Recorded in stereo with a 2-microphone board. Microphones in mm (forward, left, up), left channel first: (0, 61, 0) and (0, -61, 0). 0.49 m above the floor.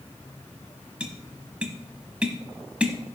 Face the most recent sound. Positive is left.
turn(degrees=-10)  # may be behind; listen again after turning